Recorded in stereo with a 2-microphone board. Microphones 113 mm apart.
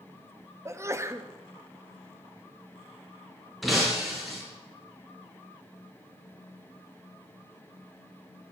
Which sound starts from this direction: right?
A sneeze, at 0.7 s.